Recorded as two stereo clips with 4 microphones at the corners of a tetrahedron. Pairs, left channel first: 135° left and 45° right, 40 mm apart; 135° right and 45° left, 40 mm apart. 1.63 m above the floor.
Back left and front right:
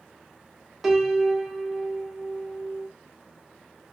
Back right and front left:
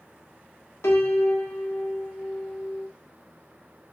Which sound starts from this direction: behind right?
A piano, at 0.8 s.